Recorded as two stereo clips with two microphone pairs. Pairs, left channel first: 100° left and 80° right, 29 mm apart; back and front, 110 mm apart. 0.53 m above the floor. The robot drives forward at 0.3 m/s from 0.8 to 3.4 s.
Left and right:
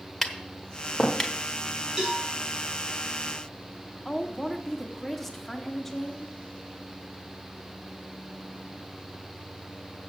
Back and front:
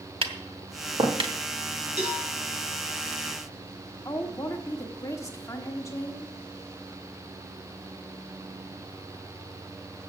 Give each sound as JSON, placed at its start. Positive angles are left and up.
{"t": 0.2, "sound": "tapping", "azimuth_deg": 25, "distance_m": 1.0}
{"t": 2.0, "sound": "a cowbell", "azimuth_deg": 0, "distance_m": 5.5}
{"t": 4.0, "sound": "a woman speaking", "azimuth_deg": 180, "distance_m": 1.3}